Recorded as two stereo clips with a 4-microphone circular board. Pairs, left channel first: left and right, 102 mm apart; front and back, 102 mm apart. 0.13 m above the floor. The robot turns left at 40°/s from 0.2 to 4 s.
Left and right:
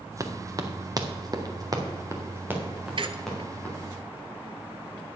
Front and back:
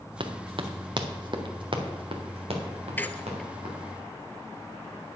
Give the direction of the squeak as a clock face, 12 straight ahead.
2 o'clock.